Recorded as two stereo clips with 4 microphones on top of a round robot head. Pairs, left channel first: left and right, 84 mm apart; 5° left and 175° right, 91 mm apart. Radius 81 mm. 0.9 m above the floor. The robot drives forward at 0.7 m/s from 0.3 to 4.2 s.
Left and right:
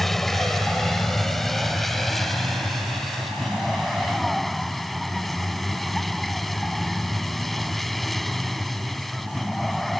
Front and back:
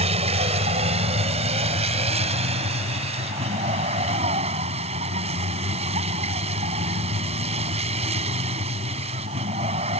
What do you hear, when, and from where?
0.0 s a vehicle: straight behind